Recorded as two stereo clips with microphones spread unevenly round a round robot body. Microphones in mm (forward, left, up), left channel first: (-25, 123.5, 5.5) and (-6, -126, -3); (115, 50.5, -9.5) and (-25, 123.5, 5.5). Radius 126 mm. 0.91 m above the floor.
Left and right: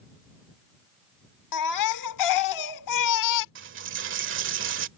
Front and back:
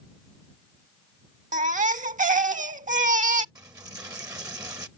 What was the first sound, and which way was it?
A baby crying, 110° left.